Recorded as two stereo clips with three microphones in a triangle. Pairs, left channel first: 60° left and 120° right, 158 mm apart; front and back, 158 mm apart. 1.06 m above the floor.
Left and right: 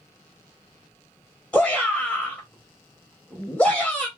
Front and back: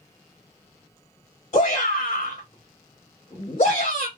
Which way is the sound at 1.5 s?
20° right.